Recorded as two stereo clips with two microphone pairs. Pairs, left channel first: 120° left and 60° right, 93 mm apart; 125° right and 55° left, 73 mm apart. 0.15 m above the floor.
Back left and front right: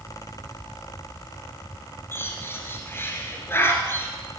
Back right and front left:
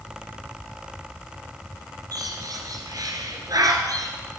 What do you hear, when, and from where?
2.1 s a bird: 65° left, 1.5 m